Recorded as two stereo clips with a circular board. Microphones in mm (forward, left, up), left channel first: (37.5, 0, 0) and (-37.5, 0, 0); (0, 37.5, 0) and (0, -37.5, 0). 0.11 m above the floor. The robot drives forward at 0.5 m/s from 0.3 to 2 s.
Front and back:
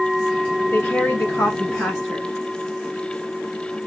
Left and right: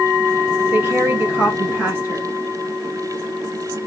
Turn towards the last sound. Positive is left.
turn(degrees=-90)